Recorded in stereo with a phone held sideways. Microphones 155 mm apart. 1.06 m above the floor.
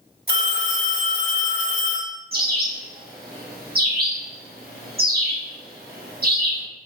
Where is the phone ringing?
75° right (ahead or behind), 1.5 m.